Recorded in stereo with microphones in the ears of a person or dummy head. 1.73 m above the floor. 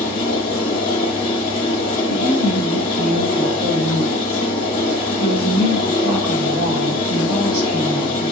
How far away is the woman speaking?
About 2.5 m.